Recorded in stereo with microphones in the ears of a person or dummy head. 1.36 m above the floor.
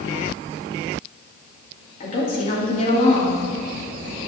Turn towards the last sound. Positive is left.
turn(degrees=45)  # may be behind; listen again after turning